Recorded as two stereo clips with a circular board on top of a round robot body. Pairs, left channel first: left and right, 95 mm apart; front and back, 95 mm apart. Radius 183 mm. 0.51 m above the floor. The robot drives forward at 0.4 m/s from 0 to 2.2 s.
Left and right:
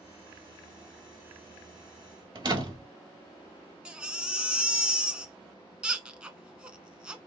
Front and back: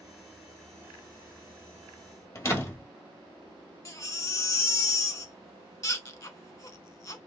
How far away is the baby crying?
About 0.8 m.